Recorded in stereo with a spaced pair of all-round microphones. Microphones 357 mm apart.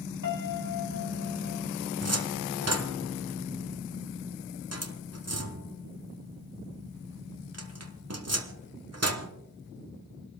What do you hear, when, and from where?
0.2 s a piano: 60° left (ahead or behind), 1.8 m
2.0 s a cupboard door: 45° right (ahead or behind), 1.1 m